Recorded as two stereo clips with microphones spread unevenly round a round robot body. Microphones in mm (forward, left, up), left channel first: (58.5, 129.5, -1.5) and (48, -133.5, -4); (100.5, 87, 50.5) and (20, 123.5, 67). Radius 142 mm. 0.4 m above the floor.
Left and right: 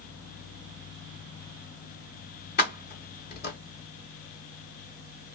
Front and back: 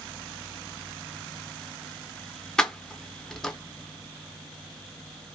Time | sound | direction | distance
2.6 | keys jangling | 50° left | 0.8 m